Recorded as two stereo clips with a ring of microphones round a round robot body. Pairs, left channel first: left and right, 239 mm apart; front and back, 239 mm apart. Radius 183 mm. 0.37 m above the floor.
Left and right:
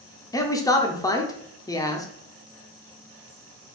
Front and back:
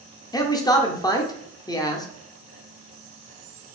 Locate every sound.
0.3 s a man speaking: 45° left, 0.8 m